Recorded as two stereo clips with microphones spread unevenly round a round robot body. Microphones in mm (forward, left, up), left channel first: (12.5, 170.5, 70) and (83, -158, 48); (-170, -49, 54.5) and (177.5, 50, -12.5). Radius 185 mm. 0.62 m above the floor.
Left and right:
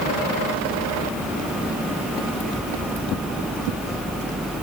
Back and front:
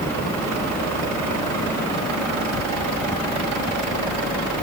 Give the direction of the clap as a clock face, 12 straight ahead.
No clap in this recording.